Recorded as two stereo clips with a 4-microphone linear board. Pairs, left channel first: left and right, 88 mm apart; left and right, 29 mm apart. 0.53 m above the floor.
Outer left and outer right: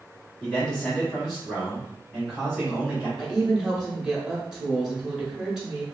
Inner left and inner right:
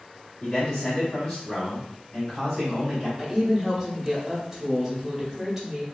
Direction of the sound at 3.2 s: 10° right (ahead or behind).